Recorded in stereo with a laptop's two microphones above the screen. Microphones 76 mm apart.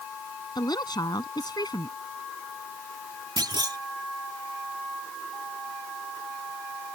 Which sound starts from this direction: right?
A clunk, at 3.4 s.